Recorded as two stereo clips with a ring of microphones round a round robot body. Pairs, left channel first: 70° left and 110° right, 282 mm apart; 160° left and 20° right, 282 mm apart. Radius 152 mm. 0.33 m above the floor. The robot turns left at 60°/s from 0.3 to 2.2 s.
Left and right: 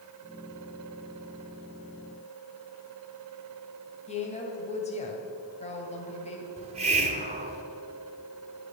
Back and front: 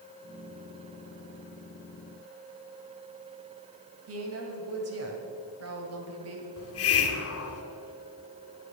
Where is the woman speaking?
5° left, 2 m.